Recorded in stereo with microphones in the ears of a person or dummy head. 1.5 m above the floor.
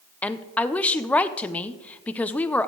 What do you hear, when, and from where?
0.2 s a woman speaking: 10° left (ahead or behind), 0.6 m